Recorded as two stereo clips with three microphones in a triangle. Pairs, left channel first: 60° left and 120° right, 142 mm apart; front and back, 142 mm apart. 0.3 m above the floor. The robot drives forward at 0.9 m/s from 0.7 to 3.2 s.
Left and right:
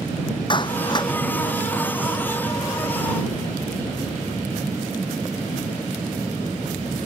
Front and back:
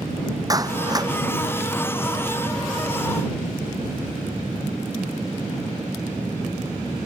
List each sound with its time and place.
0.5 s a clap: 115° left; by 1.1 s 120° left